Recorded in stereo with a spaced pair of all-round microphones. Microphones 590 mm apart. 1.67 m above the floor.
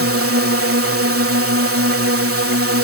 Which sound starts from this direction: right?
A drone, at 0.0 s.